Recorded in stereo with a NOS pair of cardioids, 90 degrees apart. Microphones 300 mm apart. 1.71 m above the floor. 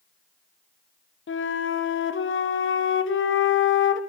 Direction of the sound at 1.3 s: 40° left.